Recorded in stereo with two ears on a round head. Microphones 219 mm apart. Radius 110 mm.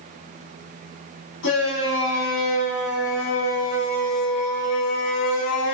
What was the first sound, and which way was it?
A shout, 60° left (ahead or behind).